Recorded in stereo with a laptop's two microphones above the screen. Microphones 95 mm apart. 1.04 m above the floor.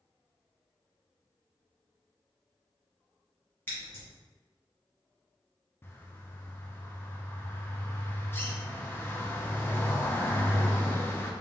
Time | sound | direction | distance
3.7 | scissors | 20° left (ahead or behind) | 1.3 m
5.8 | a bird | 25° left (ahead or behind) | 0.6 m